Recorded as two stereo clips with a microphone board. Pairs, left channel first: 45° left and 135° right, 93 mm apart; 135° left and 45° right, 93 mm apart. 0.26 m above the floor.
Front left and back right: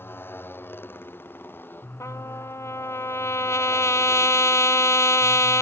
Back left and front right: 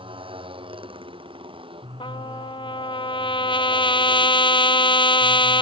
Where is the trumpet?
105° left.